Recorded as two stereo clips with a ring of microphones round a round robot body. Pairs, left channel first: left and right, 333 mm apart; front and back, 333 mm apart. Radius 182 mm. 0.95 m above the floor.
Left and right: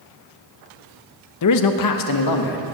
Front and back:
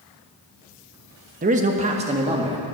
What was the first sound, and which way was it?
A man speaking, 115° left.